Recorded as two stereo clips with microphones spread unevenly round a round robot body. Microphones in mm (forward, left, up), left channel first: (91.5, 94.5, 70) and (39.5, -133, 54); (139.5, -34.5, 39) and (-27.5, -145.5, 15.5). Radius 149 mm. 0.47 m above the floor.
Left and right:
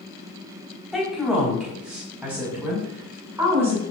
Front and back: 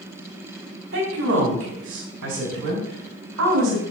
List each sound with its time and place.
0.9 s a woman speaking: 170° left, 4 m; by 3.8 s 175° left, 6 m